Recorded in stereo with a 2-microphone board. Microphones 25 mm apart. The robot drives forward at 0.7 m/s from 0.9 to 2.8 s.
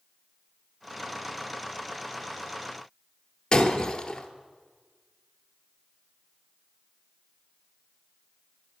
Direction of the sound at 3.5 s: 25° left (ahead or behind).